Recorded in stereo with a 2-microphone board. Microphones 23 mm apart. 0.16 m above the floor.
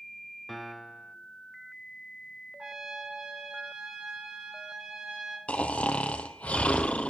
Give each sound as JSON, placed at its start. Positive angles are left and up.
{"t": 0.5, "sound": "a piano", "side_deg": 0, "distance_m": 0.5}
{"t": 2.6, "sound": "a trumpet", "side_deg": -40, "distance_m": 5.0}
{"t": 5.5, "sound": "snoring", "side_deg": 75, "distance_m": 1.0}